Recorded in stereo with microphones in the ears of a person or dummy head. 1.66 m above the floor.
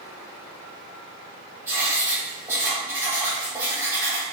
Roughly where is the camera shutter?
I don't hear a camera shutter.